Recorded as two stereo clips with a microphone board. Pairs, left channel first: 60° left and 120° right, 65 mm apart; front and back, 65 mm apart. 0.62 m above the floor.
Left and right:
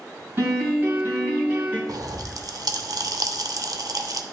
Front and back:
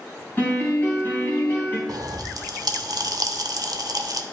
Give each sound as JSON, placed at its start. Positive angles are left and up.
{"t": 0.4, "sound": "a piano", "azimuth_deg": -60, "distance_m": 3.0}
{"t": 1.9, "sound": "a pop", "azimuth_deg": -155, "distance_m": 0.7}